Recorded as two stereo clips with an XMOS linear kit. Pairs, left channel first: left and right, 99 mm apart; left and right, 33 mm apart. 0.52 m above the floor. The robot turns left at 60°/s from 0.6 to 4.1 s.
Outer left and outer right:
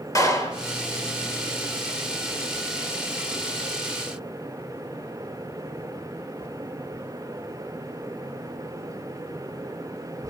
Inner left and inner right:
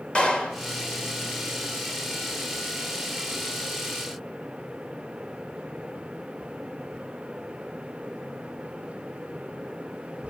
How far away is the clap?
About 1.9 m.